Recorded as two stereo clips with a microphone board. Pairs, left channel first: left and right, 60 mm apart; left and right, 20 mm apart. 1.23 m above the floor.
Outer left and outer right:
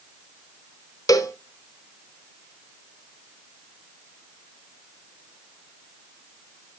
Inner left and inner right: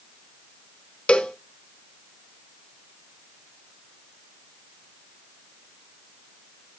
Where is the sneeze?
No sneeze in this recording.